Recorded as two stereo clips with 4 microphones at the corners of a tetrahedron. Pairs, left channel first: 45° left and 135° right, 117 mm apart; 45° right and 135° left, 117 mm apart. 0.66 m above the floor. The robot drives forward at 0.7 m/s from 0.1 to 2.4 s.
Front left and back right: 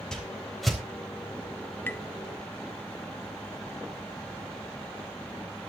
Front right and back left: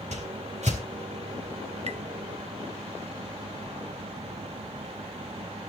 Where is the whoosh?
130° left, 3.5 m; by 0.8 s 135° left, 4 m.